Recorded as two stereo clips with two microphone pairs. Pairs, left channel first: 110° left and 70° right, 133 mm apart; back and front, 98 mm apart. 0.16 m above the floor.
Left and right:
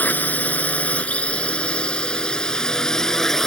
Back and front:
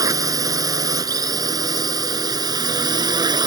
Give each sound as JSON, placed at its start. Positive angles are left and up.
{"t": 0.0, "sound": "a drone", "azimuth_deg": 35}